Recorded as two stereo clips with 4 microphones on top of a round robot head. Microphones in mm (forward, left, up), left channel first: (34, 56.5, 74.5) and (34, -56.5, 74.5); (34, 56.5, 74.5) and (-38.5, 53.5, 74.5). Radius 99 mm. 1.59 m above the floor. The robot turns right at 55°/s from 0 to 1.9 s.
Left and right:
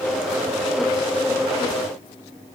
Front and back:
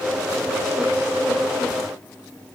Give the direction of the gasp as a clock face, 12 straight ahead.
No gasp in this recording.